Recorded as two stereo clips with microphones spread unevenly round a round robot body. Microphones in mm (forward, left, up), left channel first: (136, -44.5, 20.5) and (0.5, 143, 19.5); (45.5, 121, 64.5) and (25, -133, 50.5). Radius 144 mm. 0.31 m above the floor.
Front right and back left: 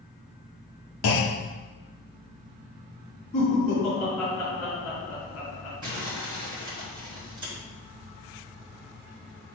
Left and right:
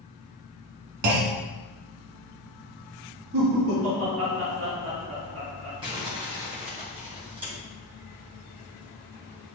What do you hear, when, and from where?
1.0 s a clunk: 75° right, 1.0 m
3.3 s laughter: 120° right, 3 m
5.8 s crumpling: 165° right, 2.5 m